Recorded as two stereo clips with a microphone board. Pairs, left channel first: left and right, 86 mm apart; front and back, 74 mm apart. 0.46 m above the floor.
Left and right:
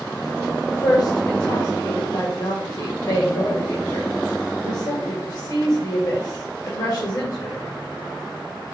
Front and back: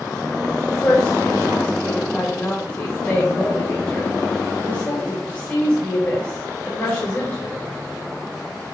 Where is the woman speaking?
60° left, 2 m.